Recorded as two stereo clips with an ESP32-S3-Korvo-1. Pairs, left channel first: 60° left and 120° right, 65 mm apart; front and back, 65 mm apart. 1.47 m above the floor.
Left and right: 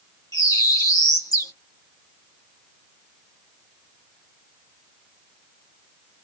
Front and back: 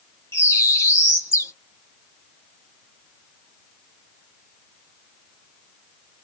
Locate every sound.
0.3 s a bird: 45° left, 1.6 m